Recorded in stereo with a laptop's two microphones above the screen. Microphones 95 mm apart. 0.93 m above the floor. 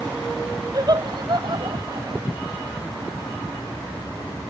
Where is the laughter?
45° right (ahead or behind); by 2.3 s 60° right (ahead or behind).